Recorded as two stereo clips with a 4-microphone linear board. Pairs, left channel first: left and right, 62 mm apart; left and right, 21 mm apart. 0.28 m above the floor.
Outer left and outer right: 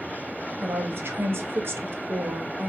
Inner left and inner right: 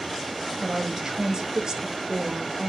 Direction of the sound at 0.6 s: 35° right (ahead or behind).